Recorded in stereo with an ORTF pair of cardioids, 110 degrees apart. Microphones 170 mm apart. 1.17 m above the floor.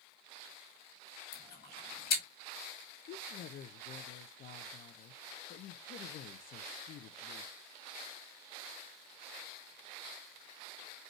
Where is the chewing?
65° left, 1.7 m.